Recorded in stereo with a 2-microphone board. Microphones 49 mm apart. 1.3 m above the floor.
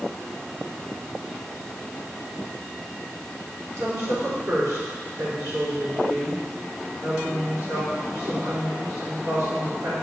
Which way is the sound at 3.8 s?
80° right.